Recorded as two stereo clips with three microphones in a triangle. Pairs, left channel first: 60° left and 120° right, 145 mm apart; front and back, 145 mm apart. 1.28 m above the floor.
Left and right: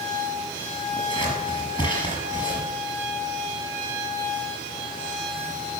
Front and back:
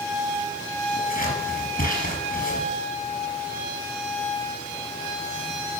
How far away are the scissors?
About 5 m.